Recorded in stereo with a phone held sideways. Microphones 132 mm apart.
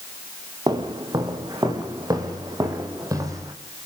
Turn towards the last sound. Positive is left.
turn(degrees=-25)  # may be behind; listen again after turning